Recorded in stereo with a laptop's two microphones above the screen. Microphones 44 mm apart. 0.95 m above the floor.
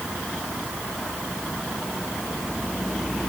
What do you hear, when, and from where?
Only background noise.